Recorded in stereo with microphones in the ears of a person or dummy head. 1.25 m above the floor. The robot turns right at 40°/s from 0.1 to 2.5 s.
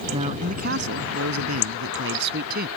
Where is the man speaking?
150° right; by 2.7 s 55° right.